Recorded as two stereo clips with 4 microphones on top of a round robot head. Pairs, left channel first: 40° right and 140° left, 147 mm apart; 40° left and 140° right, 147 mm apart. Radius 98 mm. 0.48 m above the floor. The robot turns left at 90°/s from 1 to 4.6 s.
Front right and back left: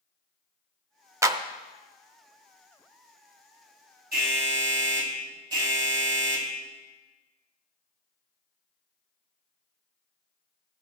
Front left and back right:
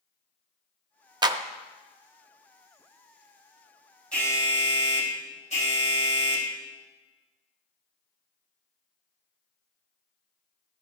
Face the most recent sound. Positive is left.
turn(degrees=80)